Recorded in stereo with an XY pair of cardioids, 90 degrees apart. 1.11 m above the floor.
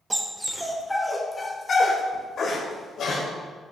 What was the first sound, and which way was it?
A dog barking, 20° right.